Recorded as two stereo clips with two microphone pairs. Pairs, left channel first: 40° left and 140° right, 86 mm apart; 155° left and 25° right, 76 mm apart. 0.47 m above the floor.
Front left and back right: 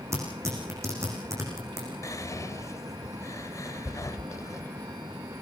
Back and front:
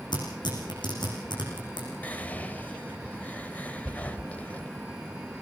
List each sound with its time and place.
0.1 s tearing paper: 160° left, 9 m
2.0 s whispering: 85° left, 2.5 m